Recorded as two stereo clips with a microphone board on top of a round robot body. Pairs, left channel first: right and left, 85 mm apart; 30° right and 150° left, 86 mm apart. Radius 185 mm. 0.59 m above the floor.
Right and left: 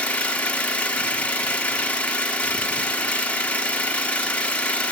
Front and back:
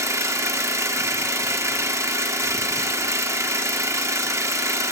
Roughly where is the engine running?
Behind.